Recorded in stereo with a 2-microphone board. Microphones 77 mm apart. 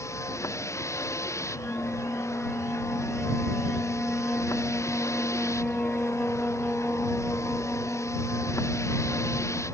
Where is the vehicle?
40° left (ahead or behind).